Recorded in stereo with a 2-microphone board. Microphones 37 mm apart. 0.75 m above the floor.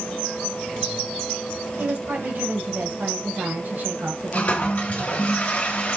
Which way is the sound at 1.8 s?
60° right (ahead or behind).